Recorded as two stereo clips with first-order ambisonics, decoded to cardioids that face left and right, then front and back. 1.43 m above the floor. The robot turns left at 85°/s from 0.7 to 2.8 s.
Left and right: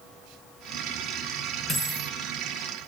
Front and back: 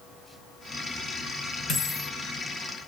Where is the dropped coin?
50° left, 1.9 m; by 2.1 s 10° left, 1.9 m.